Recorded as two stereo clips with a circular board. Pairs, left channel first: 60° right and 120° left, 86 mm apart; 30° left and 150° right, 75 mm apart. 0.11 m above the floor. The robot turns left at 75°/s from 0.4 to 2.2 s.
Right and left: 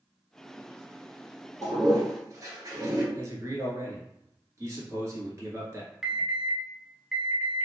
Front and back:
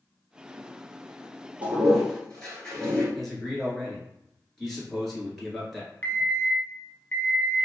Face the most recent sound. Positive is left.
turn(degrees=50)